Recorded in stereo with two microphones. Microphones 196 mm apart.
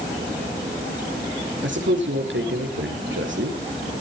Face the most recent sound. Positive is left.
turn(degrees=-70)  # may be behind; listen again after turning